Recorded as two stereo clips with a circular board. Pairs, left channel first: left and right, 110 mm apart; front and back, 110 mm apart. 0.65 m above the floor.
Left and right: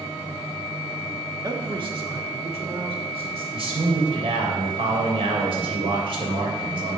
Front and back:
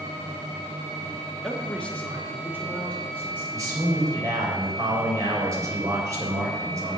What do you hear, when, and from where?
1.4 s a man speaking: 80° right, 1.0 m; by 3.4 s 70° right, 3 m
3.5 s a man speaking: 120° right, 3 m